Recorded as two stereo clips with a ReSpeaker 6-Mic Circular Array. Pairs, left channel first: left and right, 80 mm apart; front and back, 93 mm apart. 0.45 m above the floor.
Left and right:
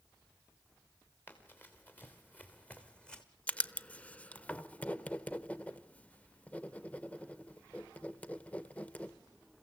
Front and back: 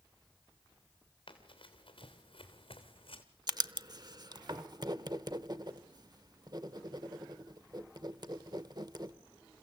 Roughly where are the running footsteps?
Ahead left.